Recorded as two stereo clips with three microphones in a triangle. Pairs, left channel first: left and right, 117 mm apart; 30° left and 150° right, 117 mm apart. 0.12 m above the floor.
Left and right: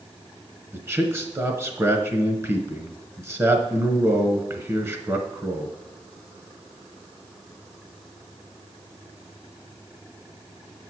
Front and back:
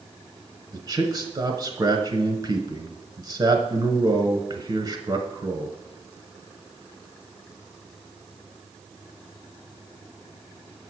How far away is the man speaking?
About 1.2 m.